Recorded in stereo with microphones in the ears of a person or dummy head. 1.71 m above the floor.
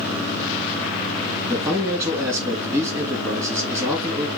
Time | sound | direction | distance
1.5 | a man speaking | 15° right (ahead or behind) | 2.5 m